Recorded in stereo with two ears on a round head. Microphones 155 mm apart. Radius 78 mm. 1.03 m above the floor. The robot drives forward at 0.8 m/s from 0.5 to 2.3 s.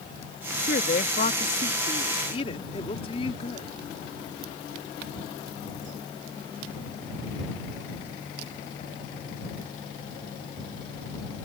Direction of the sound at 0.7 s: 50° left (ahead or behind).